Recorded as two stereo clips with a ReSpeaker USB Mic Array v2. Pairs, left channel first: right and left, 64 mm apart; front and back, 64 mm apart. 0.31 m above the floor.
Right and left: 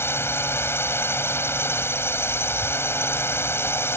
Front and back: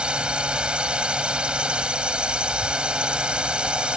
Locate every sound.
0.0 s a drone: 115° right